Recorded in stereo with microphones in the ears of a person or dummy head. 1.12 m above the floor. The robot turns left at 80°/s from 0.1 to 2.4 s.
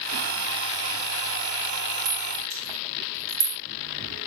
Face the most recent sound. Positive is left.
turn(degrees=-70)  # may be behind; listen again after turning